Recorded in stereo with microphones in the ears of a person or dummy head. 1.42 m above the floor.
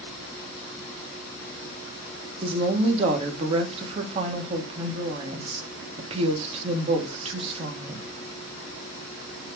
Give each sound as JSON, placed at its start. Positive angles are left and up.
{"t": 2.4, "sound": "a woman speaking", "side_deg": -35, "distance_m": 2.0}